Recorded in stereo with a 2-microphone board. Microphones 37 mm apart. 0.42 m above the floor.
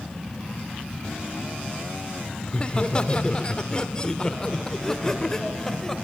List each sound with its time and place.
2.5 s laughter: 25° left (ahead or behind), 1.5 m; by 6.0 s 10° left (ahead or behind), 2.5 m